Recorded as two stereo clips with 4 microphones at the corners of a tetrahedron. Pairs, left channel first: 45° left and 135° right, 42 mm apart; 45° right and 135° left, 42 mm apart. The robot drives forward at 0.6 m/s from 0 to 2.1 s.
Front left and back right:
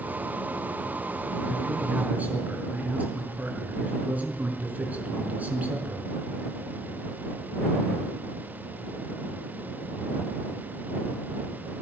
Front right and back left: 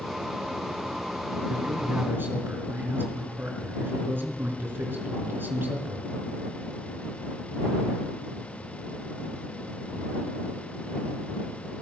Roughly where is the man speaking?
Behind.